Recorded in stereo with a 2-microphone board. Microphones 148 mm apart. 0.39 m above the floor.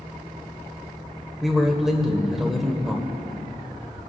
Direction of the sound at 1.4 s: Centre (ahead or behind).